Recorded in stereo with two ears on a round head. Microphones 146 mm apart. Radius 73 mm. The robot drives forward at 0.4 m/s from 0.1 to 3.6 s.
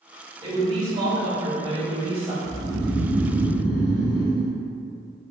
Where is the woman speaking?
25° right (ahead or behind), 1.8 m; by 2.3 s 35° right (ahead or behind), 1.4 m.